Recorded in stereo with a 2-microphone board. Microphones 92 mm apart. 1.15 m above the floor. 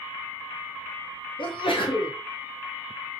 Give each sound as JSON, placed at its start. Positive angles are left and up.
{"t": 1.4, "sound": "a sneeze", "side_deg": 70, "distance_m": 0.7}